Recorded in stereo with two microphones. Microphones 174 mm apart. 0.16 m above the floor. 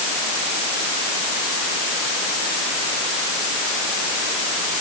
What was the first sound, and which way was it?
Only background noise.